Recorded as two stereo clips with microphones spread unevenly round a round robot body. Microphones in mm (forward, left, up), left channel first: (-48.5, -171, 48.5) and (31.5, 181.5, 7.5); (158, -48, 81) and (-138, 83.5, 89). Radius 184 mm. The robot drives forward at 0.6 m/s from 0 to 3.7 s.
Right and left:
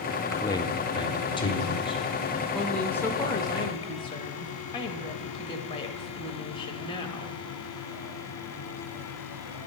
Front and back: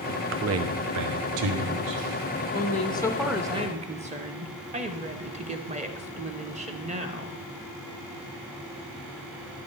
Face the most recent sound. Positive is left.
turn(degrees=-175)